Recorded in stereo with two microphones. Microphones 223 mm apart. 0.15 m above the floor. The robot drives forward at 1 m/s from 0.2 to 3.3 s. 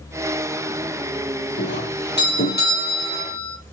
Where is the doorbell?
55° left (ahead or behind), 5.5 m; by 3.6 s 40° left (ahead or behind), 6.5 m.